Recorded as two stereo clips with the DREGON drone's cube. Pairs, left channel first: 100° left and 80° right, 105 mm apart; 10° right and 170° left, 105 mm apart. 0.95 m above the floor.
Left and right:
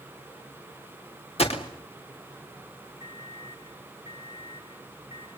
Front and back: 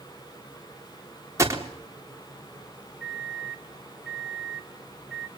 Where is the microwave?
85° left, 2.5 m.